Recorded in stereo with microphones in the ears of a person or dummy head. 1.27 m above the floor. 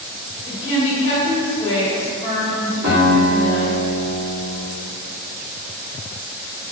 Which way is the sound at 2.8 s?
55° right (ahead or behind).